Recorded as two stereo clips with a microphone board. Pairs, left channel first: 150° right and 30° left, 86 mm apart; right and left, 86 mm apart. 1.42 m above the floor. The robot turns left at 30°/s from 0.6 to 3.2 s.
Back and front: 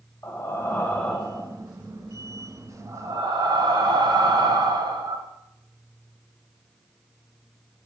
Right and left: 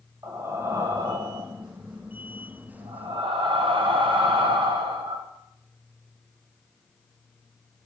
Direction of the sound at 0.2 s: 145° left.